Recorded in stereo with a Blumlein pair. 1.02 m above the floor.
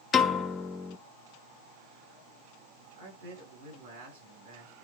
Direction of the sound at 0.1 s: 25° left.